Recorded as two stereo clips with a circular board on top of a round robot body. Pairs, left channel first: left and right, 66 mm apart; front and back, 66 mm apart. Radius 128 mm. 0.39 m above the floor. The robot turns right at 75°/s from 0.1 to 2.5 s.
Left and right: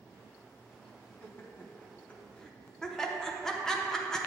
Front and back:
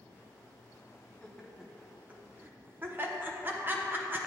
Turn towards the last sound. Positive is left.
turn(degrees=165)